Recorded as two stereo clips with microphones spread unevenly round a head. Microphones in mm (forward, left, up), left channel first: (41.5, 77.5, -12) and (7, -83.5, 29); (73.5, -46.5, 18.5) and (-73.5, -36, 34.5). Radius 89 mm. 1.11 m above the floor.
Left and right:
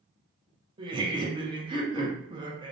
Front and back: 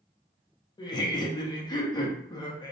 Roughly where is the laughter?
Ahead right.